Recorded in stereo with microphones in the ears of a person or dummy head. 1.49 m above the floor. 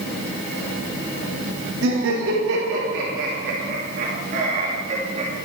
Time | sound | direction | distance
1.8 | laughter | 75° right (ahead or behind) | 3 m